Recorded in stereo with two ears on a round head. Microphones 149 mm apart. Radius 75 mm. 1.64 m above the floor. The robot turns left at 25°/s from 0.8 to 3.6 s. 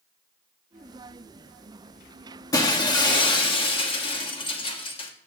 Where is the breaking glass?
20° left (ahead or behind), 1.2 m; by 5.1 s 30° left (ahead or behind), 1.2 m.